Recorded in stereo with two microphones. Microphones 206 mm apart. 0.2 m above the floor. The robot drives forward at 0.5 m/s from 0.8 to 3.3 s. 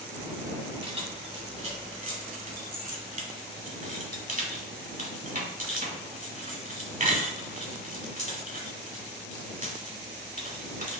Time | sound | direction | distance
0.8 | keys jangling | 30° right (ahead or behind) | 1.3 m